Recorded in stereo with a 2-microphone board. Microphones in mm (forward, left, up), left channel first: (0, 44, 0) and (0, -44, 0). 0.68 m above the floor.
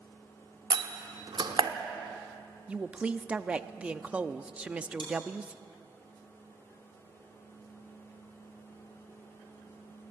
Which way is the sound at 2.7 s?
15° right (ahead or behind).